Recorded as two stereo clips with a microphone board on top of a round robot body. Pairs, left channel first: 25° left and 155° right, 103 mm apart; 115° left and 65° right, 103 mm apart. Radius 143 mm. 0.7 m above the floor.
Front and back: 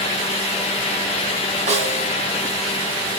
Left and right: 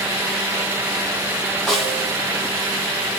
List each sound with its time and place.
1.7 s a snare drum: 160° right, 2.5 m